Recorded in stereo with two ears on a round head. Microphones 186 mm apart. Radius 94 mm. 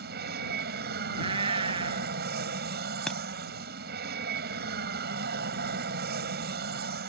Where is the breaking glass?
5° left (ahead or behind).